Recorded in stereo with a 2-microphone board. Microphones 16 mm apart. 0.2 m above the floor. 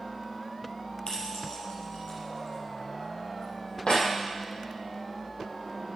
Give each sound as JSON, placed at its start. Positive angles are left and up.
{"t": 1.1, "sound": "keys jangling", "side_deg": 65, "distance_m": 3.5}